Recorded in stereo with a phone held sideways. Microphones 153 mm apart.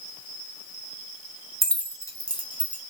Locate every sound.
1.6 s keys jangling: centre (ahead or behind), 0.6 m; by 2.8 s 35° left (ahead or behind), 1.2 m